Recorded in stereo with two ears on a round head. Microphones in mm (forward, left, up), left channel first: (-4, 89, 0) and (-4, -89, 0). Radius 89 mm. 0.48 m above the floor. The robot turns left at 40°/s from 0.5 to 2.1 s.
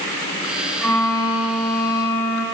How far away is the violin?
About 1.9 m.